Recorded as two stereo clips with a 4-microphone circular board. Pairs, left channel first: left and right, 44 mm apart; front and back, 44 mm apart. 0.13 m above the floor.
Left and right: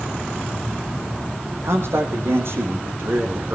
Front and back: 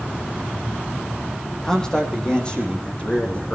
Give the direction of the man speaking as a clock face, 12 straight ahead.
3 o'clock.